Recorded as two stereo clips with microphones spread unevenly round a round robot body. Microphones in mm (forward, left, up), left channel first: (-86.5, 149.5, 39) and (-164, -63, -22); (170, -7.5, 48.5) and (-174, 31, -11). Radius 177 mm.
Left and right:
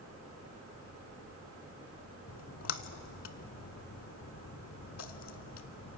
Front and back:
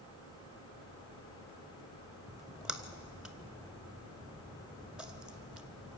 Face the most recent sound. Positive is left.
turn(degrees=80)